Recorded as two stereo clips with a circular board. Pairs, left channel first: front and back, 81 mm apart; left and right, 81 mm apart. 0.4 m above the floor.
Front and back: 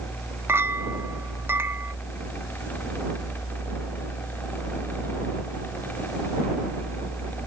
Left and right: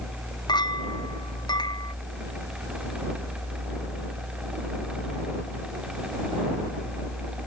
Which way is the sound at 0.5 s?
120° left.